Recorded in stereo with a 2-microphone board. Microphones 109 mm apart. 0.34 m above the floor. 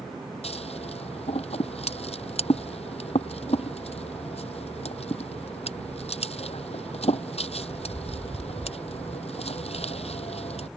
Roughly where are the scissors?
Left.